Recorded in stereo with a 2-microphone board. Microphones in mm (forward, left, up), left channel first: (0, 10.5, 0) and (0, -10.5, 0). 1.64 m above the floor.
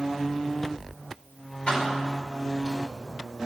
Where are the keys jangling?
65° left (ahead or behind), 2 m.